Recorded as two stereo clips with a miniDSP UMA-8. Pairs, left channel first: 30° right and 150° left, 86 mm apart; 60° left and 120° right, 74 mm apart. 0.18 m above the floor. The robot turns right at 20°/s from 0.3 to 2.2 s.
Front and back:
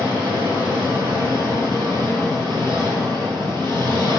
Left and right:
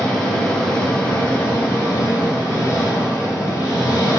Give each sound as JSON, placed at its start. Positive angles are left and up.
{"t": 0.0, "sound": "an engine running", "azimuth_deg": -20, "distance_m": 1.8}